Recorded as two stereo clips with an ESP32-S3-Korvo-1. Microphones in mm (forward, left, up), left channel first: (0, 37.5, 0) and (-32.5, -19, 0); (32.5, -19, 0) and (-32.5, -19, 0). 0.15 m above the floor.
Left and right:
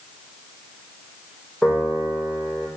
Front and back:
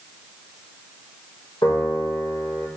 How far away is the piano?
About 5 m.